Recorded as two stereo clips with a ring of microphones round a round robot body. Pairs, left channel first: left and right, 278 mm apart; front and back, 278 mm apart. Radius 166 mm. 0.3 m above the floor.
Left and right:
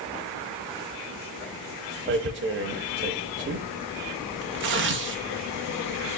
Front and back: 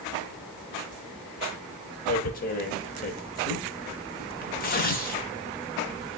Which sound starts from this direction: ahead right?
Tearing paper, at 2.1 s.